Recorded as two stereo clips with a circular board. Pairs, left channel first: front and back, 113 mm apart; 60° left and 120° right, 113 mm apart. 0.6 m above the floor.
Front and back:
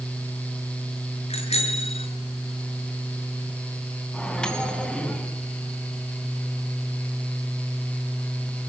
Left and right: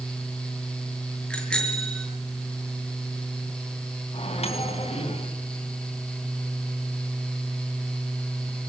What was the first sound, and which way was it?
A bicycle bell, 25° right.